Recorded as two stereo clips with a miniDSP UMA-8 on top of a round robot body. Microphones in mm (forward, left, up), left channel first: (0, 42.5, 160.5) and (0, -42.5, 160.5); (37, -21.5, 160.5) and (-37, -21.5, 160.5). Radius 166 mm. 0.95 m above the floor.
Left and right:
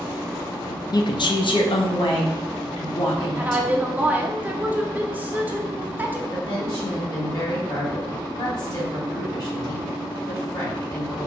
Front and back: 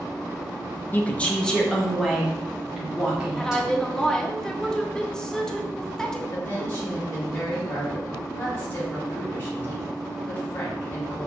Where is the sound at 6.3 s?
55° left, 1.7 m.